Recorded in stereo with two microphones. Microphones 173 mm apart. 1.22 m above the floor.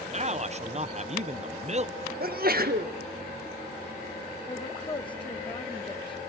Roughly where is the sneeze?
Right.